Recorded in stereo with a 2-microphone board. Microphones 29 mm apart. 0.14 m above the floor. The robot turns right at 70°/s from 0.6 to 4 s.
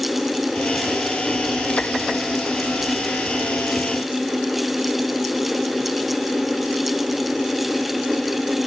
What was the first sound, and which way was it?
Only background noise.